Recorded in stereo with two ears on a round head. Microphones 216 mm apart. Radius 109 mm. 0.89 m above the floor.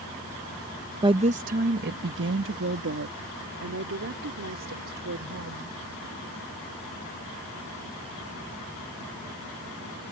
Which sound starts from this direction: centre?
A woman speaking, at 1.0 s.